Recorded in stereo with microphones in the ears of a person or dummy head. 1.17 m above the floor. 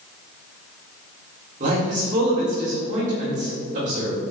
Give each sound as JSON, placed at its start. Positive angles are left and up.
{"t": 1.6, "sound": "a man speaking", "side_deg": -45, "distance_m": 3.0}